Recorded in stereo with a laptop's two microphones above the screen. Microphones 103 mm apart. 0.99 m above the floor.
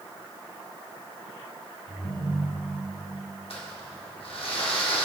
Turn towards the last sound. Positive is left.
turn(degrees=65)  # may be behind; listen again after turning